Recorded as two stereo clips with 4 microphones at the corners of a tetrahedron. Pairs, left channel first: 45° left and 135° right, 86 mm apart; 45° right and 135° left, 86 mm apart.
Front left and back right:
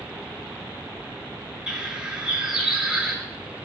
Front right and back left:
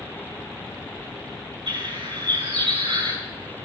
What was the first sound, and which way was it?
A bird, 145° left.